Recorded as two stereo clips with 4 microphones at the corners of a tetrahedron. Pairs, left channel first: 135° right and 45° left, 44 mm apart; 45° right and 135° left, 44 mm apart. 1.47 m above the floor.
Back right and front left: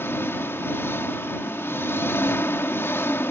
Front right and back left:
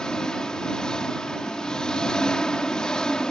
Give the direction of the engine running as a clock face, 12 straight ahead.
4 o'clock.